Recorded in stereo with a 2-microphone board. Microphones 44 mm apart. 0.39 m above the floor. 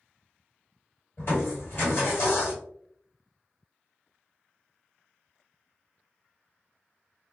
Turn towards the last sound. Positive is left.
turn(degrees=60)  # may be behind; listen again after turning